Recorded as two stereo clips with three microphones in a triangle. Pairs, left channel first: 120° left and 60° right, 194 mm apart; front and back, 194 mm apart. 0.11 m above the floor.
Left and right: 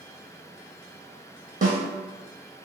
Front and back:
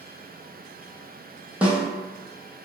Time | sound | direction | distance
1.6 | a snare drum | 95° right | 0.7 m